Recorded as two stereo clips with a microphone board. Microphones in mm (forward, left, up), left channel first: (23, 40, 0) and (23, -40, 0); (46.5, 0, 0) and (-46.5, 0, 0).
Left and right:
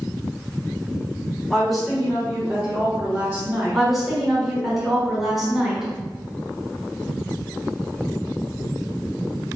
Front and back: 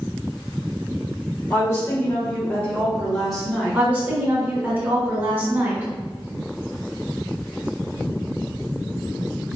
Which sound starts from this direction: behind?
A woman speaking, at 3.7 s.